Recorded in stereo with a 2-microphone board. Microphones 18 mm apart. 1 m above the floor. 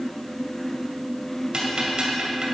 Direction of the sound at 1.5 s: 50° right (ahead or behind).